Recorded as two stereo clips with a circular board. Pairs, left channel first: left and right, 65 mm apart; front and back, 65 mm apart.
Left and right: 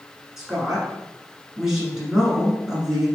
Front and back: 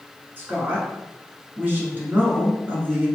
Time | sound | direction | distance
0.4 | a woman speaking | 165° right | 1.3 m